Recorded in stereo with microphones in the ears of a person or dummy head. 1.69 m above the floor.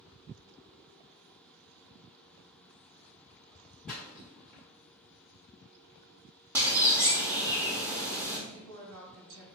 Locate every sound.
3.9 s a splash: 10° left (ahead or behind), 1.5 m
6.5 s a bird: 15° right (ahead or behind), 0.8 m
8.5 s a woman speaking: 80° right, 1.5 m